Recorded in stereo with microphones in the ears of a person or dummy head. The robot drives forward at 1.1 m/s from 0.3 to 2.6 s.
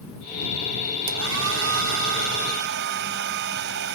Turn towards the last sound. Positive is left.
turn(degrees=-65)  # may be behind; listen again after turning